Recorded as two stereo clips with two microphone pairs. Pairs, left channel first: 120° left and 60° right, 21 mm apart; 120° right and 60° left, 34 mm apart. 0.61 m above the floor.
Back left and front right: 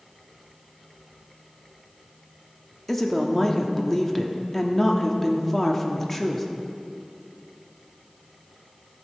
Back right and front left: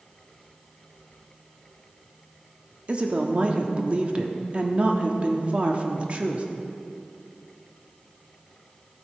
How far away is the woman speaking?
About 1.0 m.